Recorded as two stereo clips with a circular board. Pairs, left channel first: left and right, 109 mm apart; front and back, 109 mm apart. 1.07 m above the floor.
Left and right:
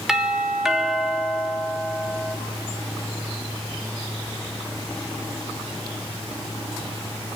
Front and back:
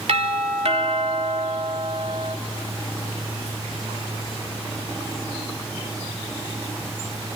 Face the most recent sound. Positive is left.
turn(degrees=-175)